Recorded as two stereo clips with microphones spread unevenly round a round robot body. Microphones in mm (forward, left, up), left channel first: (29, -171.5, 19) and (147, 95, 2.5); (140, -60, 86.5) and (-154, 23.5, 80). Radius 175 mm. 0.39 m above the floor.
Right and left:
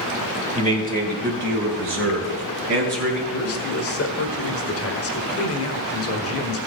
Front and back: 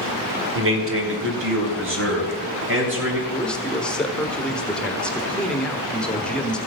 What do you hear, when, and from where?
0.6 s a man speaking: 130° left, 2.0 m; by 3.2 s 115° left, 4.5 m
3.3 s a man speaking: 105° right, 1.4 m